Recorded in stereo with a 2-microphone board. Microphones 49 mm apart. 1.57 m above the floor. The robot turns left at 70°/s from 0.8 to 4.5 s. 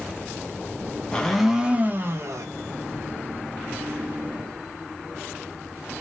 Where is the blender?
20° left, 0.7 m; by 2.5 s 75° right, 0.7 m.